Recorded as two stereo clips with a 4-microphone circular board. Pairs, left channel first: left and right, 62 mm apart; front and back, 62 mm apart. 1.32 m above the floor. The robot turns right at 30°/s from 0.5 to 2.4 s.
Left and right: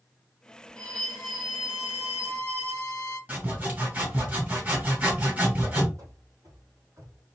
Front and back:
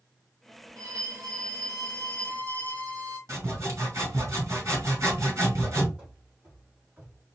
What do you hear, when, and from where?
0.8 s a violin: 170° left, 3 m; by 3.2 s 140° right, 3 m
3.3 s sawing: 150° right, 2.5 m
6.0 s running footsteps: 110° right, 3 m; by 7.4 s 125° right, 2.5 m